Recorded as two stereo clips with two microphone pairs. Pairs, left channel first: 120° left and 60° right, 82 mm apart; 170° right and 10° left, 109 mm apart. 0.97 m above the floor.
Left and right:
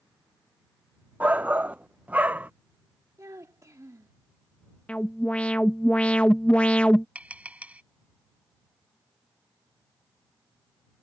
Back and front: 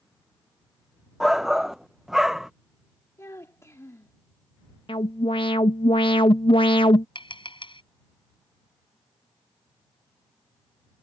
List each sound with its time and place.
1.2 s a shout: 65° right
3.2 s a child speaking: 105° right
4.9 s an alarm: 170° right
7.2 s tapping: 130° right